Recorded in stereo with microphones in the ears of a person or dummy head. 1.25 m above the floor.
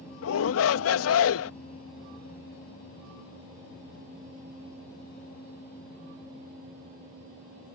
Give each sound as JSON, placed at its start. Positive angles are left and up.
{"t": 0.2, "sound": "a shout", "side_deg": 85}